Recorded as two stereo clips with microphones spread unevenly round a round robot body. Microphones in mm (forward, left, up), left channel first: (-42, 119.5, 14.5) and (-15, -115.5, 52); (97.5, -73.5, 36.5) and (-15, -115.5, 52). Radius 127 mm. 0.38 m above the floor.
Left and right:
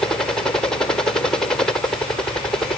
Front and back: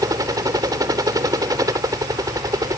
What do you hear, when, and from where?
0.0 s a helicopter: 165° left